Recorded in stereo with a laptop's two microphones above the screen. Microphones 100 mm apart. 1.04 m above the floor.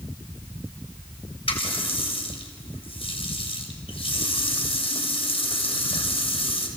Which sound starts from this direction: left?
A running tap, at 1.5 s.